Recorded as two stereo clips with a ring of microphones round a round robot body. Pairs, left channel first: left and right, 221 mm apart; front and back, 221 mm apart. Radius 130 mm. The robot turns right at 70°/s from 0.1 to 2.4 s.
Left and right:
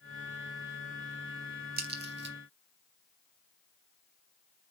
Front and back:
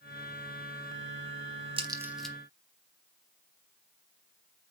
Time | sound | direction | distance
1.8 | a crack | 120° right | 1.6 m